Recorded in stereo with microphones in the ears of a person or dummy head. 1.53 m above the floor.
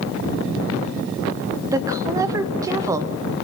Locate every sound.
1.7 s a woman speaking: 20° right (ahead or behind), 0.7 m